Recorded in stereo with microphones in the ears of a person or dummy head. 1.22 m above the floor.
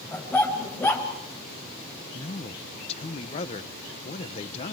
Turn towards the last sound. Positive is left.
turn(degrees=35)  # may be behind; listen again after turning